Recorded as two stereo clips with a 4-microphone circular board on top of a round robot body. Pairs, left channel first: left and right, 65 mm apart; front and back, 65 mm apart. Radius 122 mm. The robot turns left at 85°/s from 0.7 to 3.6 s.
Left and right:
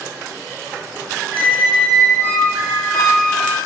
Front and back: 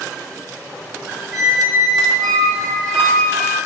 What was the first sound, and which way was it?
A squeak, 130° right.